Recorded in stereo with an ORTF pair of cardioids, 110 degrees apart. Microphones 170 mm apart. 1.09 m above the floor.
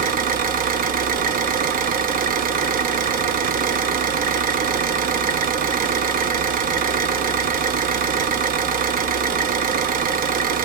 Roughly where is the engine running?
Ahead right.